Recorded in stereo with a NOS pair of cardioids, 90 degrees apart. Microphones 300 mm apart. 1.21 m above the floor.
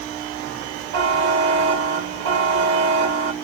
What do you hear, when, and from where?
0.9 s a buzzer: 70° right, 1.9 m